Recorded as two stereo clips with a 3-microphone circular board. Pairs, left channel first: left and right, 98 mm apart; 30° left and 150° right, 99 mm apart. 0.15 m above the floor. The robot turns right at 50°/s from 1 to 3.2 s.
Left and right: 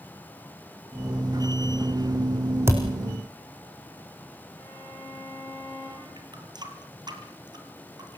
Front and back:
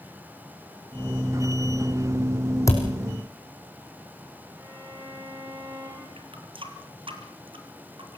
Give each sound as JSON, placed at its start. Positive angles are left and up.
{"t": 2.7, "sound": "a thud", "azimuth_deg": -25, "distance_m": 3.5}
{"t": 4.6, "sound": "a violin", "azimuth_deg": 145, "distance_m": 9.5}
{"t": 6.2, "sound": "a running tap", "azimuth_deg": -130, "distance_m": 2.5}